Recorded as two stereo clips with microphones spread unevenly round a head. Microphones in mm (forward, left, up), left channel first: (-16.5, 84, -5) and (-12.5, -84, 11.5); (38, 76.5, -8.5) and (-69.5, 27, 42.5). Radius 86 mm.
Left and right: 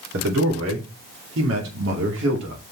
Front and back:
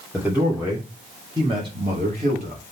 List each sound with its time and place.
0.1 s a man speaking: 65° right, 3 m; by 2.6 s 105° right, 2.5 m